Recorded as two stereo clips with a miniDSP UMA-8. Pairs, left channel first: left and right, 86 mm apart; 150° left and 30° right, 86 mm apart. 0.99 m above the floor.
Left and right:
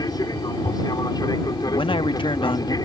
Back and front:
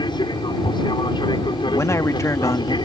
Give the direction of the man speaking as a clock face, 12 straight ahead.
9 o'clock.